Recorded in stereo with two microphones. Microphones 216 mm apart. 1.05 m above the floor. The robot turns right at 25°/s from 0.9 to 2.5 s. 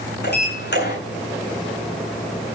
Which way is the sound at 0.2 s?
50° left (ahead or behind).